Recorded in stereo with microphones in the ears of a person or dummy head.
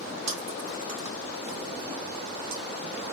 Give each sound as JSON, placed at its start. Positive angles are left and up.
{"t": 0.3, "sound": "chewing", "side_deg": -80, "distance_m": 1.5}